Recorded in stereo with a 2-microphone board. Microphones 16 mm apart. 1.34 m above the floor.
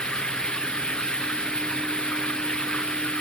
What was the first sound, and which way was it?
Running water, 75° left (ahead or behind).